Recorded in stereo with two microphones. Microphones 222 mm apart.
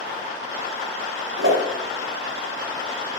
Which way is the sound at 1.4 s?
65° right (ahead or behind).